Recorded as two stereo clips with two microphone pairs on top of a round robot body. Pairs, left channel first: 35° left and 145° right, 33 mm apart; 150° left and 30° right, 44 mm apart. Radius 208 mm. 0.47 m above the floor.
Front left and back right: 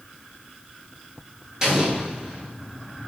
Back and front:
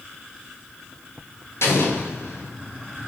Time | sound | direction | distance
1.6 | an explosion | 145° left | 2 m